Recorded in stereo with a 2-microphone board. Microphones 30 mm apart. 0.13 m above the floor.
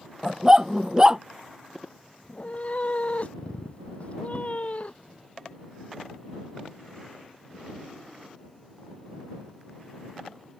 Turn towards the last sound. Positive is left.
turn(degrees=50)  # may be behind; listen again after turning